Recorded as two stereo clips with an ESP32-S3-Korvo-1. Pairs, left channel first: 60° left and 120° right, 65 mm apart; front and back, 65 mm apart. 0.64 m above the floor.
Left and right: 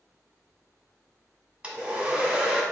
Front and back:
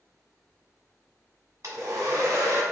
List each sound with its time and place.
1.6 s a hair dryer: 170° left, 1.0 m